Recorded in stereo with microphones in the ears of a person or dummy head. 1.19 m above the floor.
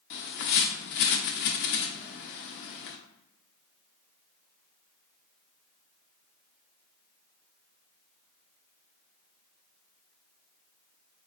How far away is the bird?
About 0.5 m.